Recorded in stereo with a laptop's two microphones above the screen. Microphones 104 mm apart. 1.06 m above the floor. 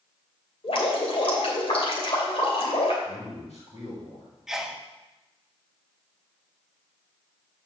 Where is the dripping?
65° left (ahead or behind), 2.5 m.